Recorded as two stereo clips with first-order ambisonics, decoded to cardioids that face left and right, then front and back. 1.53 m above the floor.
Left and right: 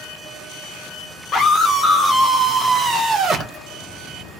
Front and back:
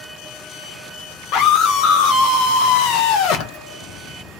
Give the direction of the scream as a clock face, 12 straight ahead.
11 o'clock.